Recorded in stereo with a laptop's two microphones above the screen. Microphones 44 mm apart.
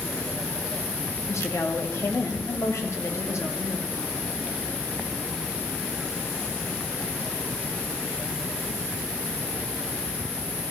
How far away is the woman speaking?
About 2.5 m.